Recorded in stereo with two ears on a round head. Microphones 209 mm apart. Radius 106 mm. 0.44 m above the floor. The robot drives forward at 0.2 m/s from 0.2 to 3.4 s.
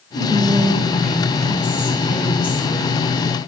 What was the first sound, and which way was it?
Whispering, 10° left (ahead or behind).